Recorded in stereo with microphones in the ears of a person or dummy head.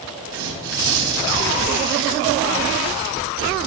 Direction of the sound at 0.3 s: 80° right.